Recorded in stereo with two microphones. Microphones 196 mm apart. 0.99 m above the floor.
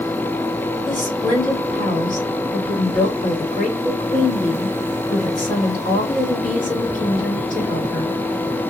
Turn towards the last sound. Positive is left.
turn(degrees=40)  # may be behind; listen again after turning